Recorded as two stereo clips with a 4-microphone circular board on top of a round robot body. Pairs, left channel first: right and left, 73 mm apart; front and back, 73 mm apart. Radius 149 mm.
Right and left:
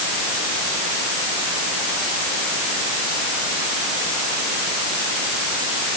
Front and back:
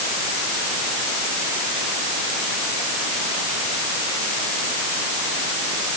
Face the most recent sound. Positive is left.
No sound to turn to.